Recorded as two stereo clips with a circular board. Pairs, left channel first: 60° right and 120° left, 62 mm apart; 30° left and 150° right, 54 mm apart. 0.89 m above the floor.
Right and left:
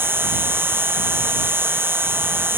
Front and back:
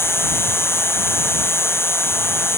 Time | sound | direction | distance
0.0 | an insect | 65° left | ?